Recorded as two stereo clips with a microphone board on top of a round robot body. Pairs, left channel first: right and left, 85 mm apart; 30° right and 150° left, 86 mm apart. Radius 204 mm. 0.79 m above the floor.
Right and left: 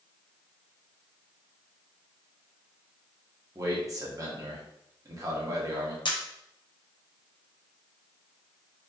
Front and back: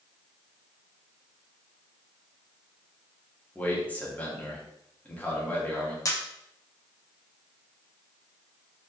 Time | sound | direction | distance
3.5 | a man speaking | 40° left | 1.5 m
6.0 | a camera shutter | 75° right | 1.0 m